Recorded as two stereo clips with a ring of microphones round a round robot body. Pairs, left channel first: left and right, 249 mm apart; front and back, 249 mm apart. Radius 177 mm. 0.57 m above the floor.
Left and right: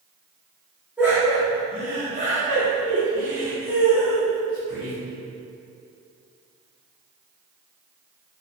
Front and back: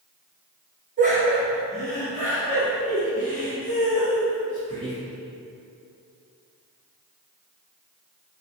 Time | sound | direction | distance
1.0 | laughter | 170° right | 0.8 m